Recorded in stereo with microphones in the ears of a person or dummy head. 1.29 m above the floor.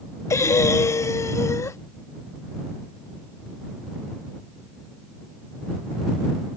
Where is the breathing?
15° left (ahead or behind).